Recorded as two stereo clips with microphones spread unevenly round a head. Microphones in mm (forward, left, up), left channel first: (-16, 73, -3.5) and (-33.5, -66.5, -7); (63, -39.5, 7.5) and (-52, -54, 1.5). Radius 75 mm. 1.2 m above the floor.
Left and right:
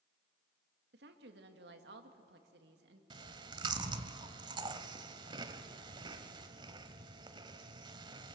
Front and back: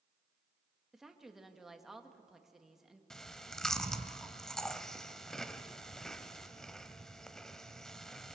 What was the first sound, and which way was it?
A woman speaking, 85° right.